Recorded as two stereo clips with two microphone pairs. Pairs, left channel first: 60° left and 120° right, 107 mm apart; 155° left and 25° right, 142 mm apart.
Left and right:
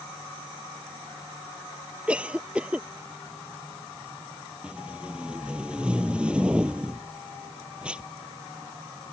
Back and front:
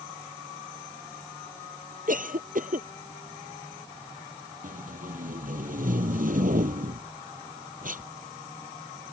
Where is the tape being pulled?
40° right.